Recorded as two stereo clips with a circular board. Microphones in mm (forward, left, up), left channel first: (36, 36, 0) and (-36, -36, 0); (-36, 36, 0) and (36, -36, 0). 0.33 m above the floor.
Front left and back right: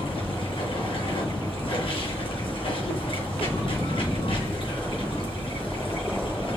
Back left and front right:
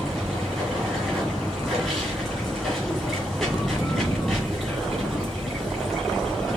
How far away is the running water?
About 2.5 m.